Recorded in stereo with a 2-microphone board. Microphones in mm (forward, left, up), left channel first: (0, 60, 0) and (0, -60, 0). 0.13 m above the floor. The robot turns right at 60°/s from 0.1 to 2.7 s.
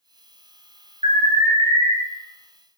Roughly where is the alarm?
Right.